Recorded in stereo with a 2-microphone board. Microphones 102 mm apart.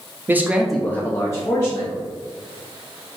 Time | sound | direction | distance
0.3 | a man speaking | 20° right (ahead or behind) | 0.7 m